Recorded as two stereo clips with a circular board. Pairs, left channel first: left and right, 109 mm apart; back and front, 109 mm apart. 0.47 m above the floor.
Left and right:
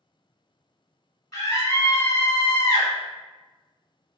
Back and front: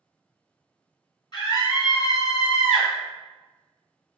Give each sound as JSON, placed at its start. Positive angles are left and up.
{"t": 1.3, "sound": "a scream", "azimuth_deg": 150, "distance_m": 1.3}